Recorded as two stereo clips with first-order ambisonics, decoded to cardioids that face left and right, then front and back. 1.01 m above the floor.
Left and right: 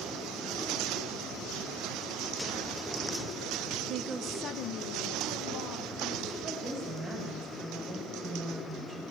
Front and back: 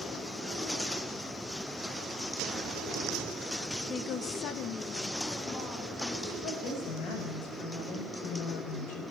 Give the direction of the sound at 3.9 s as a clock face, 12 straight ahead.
2 o'clock.